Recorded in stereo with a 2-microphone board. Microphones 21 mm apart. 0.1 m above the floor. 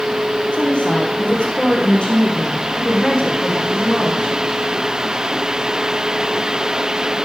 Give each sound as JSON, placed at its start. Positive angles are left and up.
{"t": 0.5, "sound": "a woman speaking", "side_deg": 65, "distance_m": 5.0}